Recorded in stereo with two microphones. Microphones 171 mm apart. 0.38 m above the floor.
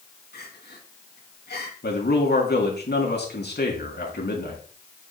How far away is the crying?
About 3 m.